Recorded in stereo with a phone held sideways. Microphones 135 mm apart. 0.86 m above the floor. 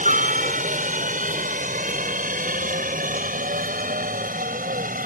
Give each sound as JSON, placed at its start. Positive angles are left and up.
{"t": 0.0, "sound": "a helicopter", "side_deg": -65}